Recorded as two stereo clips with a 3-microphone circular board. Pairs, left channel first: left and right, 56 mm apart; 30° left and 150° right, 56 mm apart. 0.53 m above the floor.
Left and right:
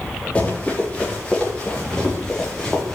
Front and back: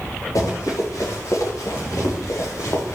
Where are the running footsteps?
20° left, 6 m; by 3.0 s 10° left, 3.5 m.